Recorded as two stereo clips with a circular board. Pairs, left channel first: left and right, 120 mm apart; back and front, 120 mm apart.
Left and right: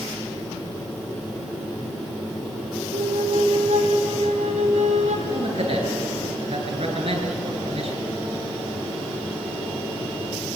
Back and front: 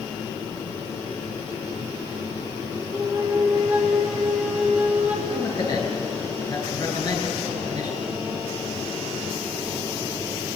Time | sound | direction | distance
2.9 | a flute | 80° right | 3 m
5.3 | a man speaking | 125° right | 9.5 m